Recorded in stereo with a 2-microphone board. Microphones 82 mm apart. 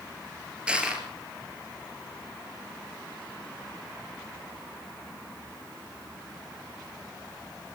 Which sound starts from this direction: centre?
Crushing, at 0.7 s.